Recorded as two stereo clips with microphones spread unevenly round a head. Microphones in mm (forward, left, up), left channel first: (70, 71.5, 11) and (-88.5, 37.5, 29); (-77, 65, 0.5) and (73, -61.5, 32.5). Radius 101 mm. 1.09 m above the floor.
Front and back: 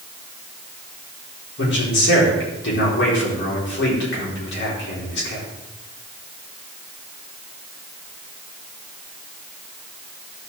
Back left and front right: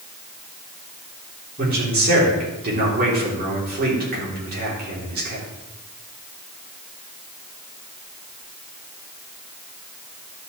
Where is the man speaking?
5° left, 3 m.